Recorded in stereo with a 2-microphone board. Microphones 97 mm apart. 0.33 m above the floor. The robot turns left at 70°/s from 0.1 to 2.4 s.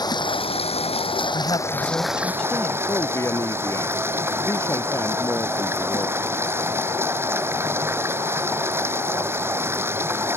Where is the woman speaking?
85° left; by 2.8 s 10° left.